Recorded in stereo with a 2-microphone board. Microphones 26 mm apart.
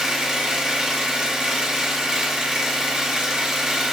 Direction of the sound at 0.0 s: 25° right (ahead or behind).